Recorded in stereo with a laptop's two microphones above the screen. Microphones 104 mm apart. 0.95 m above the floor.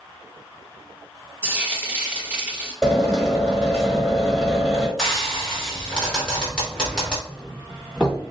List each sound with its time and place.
1.4 s frying: 15° right (ahead or behind), 1.9 m
2.8 s a drill: 5° left (ahead or behind), 1.1 m
5.0 s frying: 10° left (ahead or behind), 1.0 m
7.3 s a doorbell: 10° left (ahead or behind), 1.3 m